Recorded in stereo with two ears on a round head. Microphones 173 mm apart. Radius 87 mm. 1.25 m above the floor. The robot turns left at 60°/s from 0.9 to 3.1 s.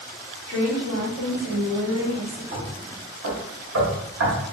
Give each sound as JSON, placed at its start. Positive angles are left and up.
{"t": 0.5, "sound": "a woman speaking", "azimuth_deg": 30, "distance_m": 1.9}
{"t": 2.5, "sound": "knocking", "side_deg": -65, "distance_m": 1.4}